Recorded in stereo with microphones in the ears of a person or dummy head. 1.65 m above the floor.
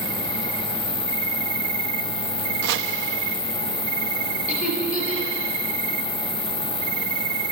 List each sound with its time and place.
0.0 s an insect: 60° right (ahead or behind), 1.3 m
2.6 s chopping: 60° right (ahead or behind), 0.7 m
4.5 s laughter: 50° left (ahead or behind), 4.5 m